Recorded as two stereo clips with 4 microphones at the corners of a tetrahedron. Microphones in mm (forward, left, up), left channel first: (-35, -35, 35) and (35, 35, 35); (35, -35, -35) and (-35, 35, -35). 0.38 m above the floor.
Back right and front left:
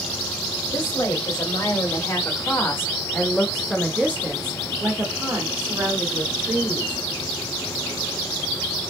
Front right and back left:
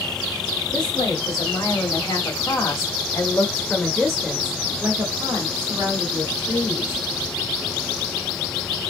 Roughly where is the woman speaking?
Right.